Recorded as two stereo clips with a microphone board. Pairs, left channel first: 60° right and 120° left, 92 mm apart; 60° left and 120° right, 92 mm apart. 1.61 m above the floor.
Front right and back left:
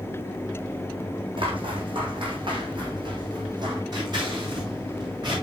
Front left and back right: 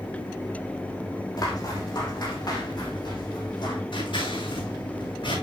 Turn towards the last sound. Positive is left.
turn(degrees=80)